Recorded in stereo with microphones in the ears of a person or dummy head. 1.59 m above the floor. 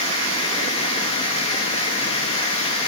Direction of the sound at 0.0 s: 30° left (ahead or behind).